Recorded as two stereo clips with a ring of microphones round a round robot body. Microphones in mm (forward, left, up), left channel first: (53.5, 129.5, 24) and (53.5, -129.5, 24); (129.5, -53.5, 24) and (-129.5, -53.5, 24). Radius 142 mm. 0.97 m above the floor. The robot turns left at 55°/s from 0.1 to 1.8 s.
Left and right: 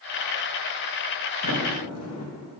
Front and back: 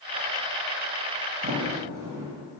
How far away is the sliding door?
About 1.0 m.